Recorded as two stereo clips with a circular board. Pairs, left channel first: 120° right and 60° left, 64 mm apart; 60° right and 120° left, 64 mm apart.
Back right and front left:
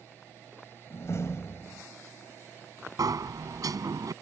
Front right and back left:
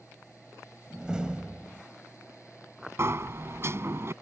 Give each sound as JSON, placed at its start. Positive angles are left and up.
{"t": 0.9, "sound": "a door slam", "azimuth_deg": -165}
{"t": 3.0, "sound": "a sliding door", "azimuth_deg": 70}